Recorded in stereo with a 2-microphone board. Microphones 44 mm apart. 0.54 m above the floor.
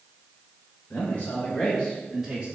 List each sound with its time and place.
0.9 s a man speaking: 45° left (ahead or behind), 1.9 m; by 2.6 s 25° right (ahead or behind), 1.1 m